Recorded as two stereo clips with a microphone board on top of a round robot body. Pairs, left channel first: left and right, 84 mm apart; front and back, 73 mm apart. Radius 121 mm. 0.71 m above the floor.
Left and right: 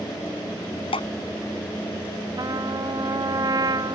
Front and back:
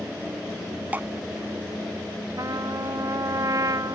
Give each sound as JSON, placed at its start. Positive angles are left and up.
{"t": 0.9, "sound": "dripping", "azimuth_deg": 110}
{"t": 2.4, "sound": "a trumpet", "azimuth_deg": -135}